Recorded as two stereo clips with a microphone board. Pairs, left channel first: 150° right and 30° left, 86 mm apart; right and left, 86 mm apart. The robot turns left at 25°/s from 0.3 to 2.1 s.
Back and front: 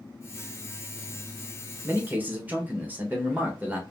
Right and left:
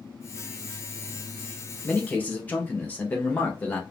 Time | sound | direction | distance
1.8 | a man speaking | 25° right | 0.9 m